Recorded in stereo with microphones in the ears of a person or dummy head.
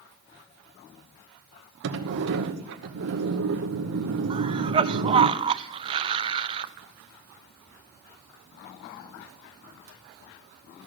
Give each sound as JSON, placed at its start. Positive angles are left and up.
{"t": 1.8, "sound": "a sliding door", "side_deg": -70, "distance_m": 0.9}
{"t": 4.3, "sound": "a cough", "side_deg": -30, "distance_m": 0.5}